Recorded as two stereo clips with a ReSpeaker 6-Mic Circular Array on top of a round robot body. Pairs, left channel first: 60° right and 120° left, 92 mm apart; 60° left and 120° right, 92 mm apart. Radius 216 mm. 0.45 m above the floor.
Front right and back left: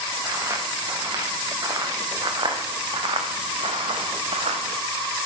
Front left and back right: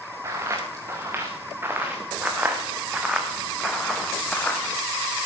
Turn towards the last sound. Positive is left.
turn(degrees=130)